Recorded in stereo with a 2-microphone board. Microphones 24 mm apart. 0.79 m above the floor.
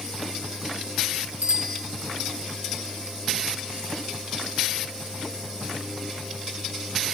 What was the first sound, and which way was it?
A bicycle bell, 70° right (ahead or behind).